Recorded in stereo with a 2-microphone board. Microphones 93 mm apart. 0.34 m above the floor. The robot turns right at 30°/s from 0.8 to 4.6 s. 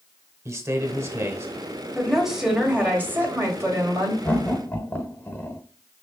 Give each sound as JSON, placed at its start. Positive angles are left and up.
{"t": 0.5, "sound": "a man speaking", "side_deg": -30, "distance_m": 0.9}
{"t": 1.9, "sound": "a woman speaking", "azimuth_deg": 180, "distance_m": 1.9}
{"t": 4.2, "sound": "laughter", "side_deg": 20, "distance_m": 1.0}